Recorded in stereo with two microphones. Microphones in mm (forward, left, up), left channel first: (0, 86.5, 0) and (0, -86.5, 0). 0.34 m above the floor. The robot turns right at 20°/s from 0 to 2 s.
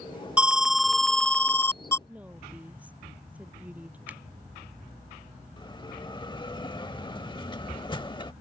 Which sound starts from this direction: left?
A bell, at 5.6 s.